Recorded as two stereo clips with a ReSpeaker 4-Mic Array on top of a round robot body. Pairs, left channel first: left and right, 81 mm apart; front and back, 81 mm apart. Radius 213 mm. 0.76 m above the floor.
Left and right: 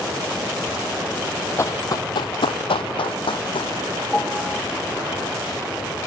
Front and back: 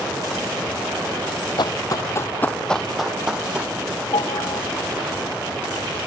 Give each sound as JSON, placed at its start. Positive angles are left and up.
{"t": 1.6, "sound": "running footsteps", "azimuth_deg": 30}
{"t": 4.1, "sound": "a piano", "azimuth_deg": 15}